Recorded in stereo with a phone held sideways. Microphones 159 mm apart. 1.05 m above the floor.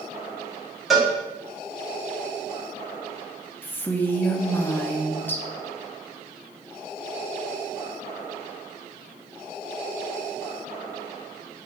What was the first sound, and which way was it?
A cowbell, centre (ahead or behind).